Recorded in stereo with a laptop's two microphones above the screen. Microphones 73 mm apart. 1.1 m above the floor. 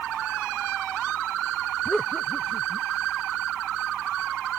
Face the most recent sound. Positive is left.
turn(degrees=10)  # may be behind; listen again after turning